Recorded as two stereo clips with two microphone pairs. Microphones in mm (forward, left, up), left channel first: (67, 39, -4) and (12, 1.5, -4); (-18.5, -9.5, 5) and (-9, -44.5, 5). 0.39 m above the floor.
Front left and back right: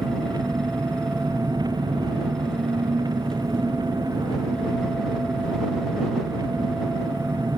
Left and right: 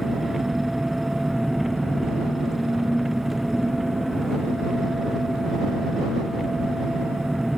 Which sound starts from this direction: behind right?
An engine running, at 0.0 s.